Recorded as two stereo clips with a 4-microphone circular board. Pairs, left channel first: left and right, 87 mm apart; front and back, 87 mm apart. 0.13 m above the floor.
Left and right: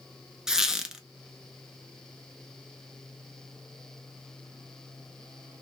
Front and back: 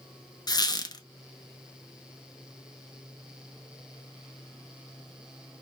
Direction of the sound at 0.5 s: 5° right.